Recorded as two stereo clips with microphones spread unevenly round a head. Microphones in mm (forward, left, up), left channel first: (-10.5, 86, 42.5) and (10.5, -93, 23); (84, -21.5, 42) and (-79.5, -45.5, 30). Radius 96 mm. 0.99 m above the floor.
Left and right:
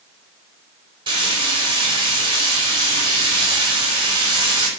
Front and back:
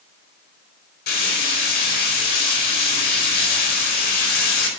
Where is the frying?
20° right, 5 m.